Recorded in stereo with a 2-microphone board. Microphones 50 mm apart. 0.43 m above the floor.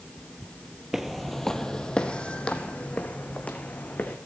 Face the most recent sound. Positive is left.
turn(degrees=30)  # may be behind; listen again after turning